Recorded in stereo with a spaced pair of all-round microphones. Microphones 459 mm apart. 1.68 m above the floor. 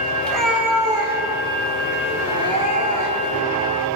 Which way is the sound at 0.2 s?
5° left (ahead or behind).